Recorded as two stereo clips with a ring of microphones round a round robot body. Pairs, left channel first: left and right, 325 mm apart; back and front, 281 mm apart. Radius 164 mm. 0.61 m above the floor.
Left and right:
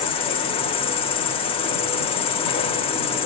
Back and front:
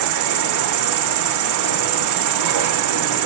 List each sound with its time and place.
0.0 s an insect: 15° left, 0.8 m